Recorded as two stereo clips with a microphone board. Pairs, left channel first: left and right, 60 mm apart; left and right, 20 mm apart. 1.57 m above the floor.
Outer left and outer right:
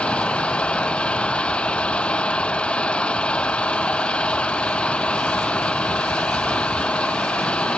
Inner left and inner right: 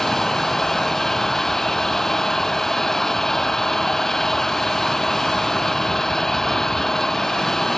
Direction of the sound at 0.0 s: 20° left (ahead or behind).